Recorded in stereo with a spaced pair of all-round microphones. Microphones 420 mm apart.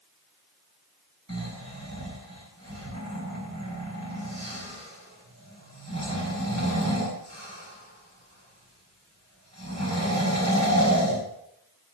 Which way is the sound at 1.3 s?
40° right (ahead or behind).